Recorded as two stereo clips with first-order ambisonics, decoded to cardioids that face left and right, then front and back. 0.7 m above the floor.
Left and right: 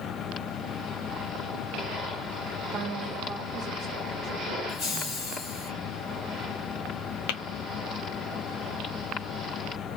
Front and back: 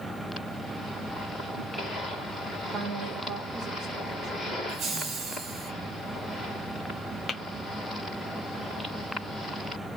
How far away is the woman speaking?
About 1.0 m.